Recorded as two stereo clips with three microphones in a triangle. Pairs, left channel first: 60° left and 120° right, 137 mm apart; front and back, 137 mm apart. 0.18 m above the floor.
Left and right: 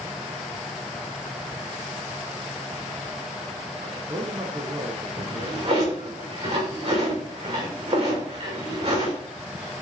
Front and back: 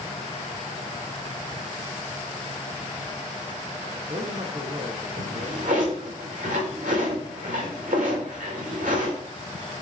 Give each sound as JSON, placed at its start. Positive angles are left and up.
{"t": 3.8, "sound": "a man speaking", "azimuth_deg": -155, "distance_m": 1.7}
{"t": 5.2, "sound": "a drawer", "azimuth_deg": -170, "distance_m": 6.0}